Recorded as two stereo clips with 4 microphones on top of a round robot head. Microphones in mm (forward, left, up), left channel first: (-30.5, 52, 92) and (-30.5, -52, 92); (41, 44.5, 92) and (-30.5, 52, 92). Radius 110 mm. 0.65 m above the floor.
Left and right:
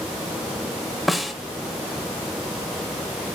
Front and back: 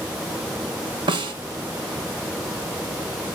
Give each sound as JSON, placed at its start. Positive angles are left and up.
{"t": 1.1, "sound": "a snare drum", "azimuth_deg": 180, "distance_m": 1.3}